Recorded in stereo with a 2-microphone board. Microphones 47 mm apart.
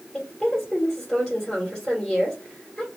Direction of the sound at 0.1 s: 10° left (ahead or behind).